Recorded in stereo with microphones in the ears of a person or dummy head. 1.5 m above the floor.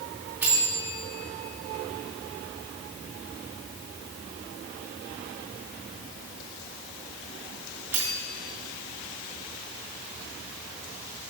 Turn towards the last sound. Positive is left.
turn(degrees=0)  # may be behind; listen again after turning